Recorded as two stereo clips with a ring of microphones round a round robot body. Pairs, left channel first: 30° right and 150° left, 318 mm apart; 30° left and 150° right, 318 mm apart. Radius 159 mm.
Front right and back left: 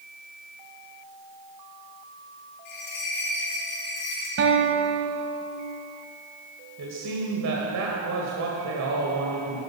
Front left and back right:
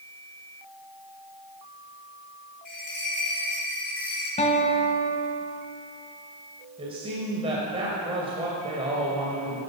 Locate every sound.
2.6 s a bell: 55° right, 6 m
4.4 s a guitar: 100° left, 1.5 m
6.8 s a man speaking: 140° left, 2 m